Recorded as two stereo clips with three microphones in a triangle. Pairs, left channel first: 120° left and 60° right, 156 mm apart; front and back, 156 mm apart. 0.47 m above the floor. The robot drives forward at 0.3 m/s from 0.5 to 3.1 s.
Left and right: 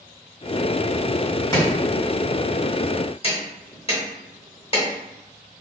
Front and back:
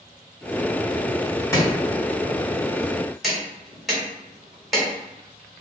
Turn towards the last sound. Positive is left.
turn(degrees=90)